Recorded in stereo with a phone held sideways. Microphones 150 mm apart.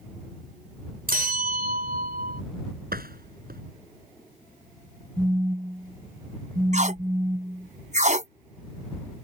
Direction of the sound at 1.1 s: 80° right.